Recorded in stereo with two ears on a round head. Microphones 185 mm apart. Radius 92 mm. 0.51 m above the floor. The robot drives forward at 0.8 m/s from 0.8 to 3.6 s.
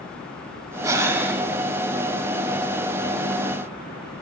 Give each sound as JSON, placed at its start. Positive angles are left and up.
{"t": 0.8, "sound": "breathing", "side_deg": -15, "distance_m": 0.7}